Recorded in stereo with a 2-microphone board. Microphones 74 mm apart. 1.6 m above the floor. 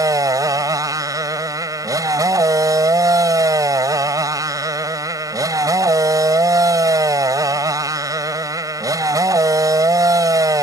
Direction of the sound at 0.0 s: 55° right (ahead or behind).